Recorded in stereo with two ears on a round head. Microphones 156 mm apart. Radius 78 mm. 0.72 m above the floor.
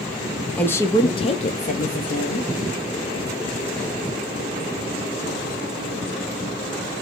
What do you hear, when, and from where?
0.6 s a woman speaking: 10° left (ahead or behind), 0.7 m; by 2.5 s 55° left (ahead or behind), 0.9 m